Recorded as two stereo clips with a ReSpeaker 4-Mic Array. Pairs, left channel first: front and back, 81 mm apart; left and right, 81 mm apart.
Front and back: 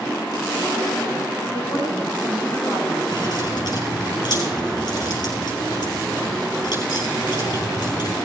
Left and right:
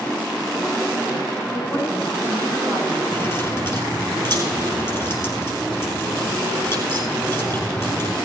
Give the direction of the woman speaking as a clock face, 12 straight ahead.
10 o'clock.